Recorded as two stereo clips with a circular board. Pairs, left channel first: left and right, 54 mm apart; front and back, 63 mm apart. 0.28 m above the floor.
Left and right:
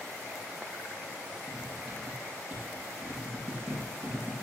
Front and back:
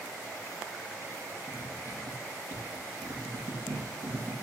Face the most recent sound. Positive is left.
turn(degrees=-150)